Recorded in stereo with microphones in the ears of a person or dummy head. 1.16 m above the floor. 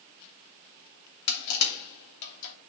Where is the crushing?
65° left (ahead or behind), 2.5 m.